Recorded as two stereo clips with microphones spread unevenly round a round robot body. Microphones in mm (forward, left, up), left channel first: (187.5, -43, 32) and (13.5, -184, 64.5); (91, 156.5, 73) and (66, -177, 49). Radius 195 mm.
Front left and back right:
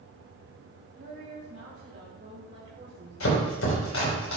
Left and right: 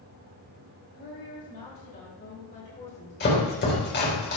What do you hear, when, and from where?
0.9 s a woman speaking: 150° left, 5 m; by 4.2 s 145° left, 3 m
3.2 s chopping: 25° left, 4.5 m